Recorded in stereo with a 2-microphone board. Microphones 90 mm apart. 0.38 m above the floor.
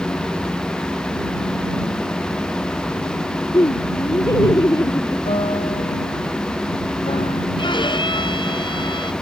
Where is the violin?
60° left (ahead or behind).